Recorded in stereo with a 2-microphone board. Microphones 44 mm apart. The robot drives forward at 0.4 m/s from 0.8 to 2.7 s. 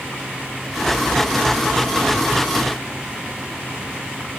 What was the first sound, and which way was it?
Only background noise.